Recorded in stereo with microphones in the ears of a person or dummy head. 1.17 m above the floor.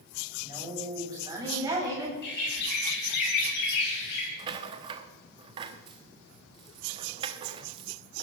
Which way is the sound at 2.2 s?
65° left (ahead or behind).